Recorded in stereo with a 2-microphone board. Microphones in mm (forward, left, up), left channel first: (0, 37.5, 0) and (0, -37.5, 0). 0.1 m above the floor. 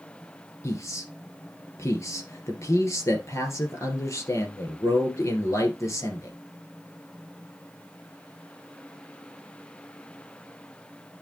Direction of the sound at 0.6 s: 40° left (ahead or behind).